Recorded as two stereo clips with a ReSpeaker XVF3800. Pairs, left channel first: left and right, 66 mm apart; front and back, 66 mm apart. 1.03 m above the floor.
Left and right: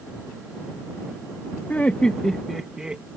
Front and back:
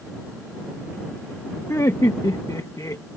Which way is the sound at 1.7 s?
25° left.